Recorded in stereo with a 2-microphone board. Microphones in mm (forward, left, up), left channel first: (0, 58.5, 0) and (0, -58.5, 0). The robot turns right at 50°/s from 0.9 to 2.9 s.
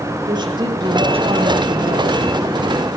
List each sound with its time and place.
0.3 s a woman speaking: 140° right, 4.5 m; by 2.2 s 75° right, 4.5 m